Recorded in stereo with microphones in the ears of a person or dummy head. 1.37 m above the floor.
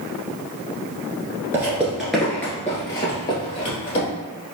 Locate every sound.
1.5 s footsteps: 15° right (ahead or behind), 1.3 m; by 4.1 s 30° left (ahead or behind), 2 m